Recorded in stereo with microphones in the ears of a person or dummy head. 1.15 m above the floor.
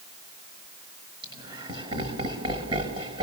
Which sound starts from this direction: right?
Laughter, at 1.2 s.